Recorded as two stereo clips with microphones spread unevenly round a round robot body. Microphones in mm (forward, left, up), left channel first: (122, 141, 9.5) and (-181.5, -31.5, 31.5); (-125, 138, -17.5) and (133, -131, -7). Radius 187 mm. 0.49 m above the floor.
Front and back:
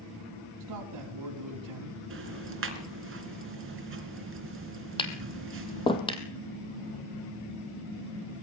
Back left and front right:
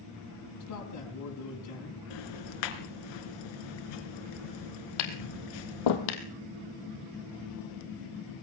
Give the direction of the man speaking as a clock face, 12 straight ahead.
6 o'clock.